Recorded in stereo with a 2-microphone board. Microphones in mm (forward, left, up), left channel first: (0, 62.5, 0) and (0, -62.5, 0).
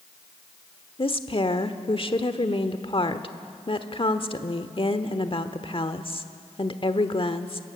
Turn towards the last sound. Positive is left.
turn(degrees=45)  # may be behind; listen again after turning